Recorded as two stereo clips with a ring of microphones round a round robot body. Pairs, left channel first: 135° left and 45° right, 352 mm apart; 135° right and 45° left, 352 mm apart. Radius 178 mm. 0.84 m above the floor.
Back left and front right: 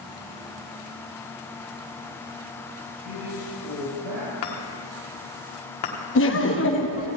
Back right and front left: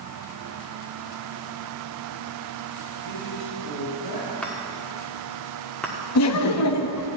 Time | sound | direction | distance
3.0 | a man speaking | 80° right | 4.5 m
4.4 | a chime | 140° left | 1.6 m
6.2 | laughter | 175° right | 0.9 m